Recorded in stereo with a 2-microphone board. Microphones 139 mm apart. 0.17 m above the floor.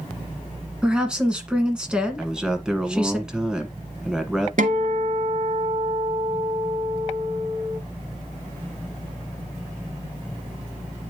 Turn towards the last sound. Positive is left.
turn(degrees=-65)  # may be behind; listen again after turning